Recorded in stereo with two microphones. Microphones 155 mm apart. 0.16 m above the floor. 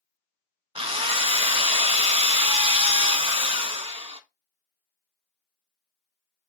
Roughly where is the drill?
Right.